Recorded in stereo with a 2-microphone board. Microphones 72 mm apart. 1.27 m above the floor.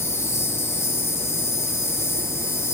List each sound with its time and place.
0.0 s an insect: 40° left (ahead or behind), 1.2 m